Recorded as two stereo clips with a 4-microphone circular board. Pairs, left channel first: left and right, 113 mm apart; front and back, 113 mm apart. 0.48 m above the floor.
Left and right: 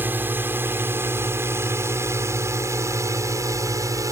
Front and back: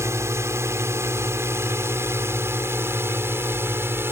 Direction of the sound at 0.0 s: 145° right.